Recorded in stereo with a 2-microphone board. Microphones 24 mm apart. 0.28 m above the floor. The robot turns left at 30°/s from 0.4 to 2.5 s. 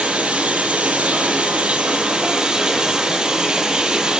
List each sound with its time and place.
0.0 s running water: 75° right, 1.4 m; by 4.2 s 135° right, 1.4 m